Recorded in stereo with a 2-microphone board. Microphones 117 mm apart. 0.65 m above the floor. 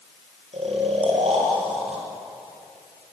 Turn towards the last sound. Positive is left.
turn(degrees=-60)  # may be behind; listen again after turning